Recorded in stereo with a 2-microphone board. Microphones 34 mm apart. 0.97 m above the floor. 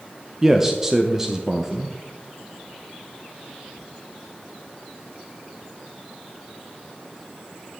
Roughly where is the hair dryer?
I don't hear a hair dryer.